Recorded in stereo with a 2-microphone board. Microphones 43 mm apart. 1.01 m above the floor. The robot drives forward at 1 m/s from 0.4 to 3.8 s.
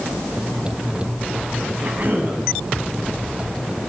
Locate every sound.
1.8 s a cough: 45° right (ahead or behind), 8 m